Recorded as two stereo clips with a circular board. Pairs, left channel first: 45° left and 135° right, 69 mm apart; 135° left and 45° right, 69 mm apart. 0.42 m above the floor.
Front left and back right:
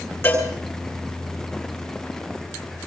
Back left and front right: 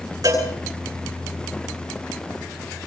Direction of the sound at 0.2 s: 10° right.